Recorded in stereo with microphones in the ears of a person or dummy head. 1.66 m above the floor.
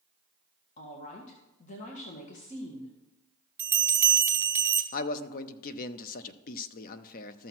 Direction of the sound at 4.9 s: 45° left (ahead or behind).